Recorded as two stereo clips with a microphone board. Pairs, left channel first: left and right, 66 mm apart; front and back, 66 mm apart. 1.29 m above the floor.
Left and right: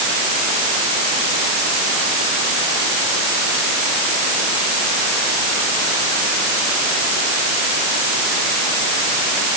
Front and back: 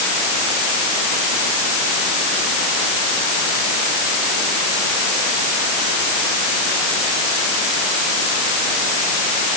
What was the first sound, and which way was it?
Only background noise.